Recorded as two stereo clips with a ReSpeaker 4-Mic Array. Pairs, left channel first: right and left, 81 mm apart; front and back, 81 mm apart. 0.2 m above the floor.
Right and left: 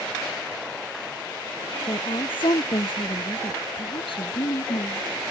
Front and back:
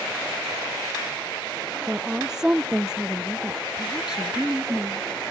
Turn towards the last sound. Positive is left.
turn(degrees=-95)